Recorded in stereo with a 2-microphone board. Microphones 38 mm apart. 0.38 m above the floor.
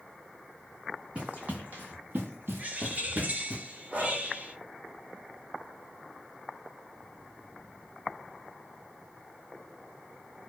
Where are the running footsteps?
35° right (ahead or behind), 1.4 m; by 3.6 s 40° right (ahead or behind), 1.1 m.